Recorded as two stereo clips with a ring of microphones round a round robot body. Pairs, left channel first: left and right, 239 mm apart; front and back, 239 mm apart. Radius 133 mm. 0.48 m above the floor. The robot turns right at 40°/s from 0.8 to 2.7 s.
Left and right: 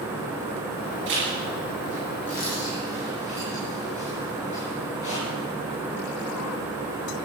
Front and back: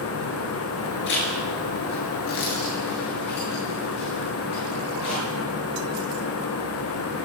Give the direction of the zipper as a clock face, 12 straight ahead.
1 o'clock.